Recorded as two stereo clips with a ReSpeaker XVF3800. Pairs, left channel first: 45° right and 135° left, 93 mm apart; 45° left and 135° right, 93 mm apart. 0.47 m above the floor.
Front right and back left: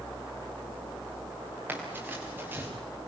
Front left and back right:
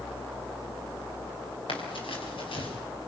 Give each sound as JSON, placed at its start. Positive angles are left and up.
{"t": 1.7, "sound": "running footsteps", "azimuth_deg": 65, "distance_m": 6.5}